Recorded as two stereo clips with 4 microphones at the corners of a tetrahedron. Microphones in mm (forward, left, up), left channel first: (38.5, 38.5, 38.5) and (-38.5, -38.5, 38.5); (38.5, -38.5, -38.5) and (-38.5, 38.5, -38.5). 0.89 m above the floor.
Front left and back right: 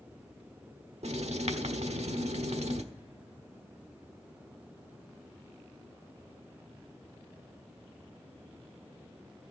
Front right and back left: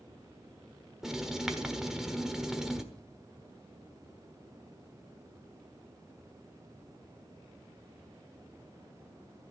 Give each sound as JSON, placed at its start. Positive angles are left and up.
{"t": 1.0, "sound": "writing", "azimuth_deg": -140, "distance_m": 1.3}